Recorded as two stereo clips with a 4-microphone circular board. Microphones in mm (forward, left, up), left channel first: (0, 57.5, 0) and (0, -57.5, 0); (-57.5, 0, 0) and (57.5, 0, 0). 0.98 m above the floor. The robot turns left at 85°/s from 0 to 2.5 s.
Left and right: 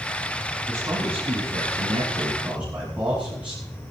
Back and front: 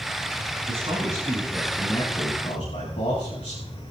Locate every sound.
0.7 s a man speaking: 15° right, 7.5 m; by 3.6 s 170° right, 7.5 m